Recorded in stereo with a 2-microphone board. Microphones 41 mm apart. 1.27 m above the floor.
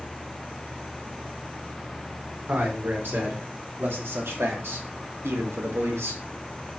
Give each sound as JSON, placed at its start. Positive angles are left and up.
{"t": 2.5, "sound": "a man speaking", "side_deg": -60, "distance_m": 4.0}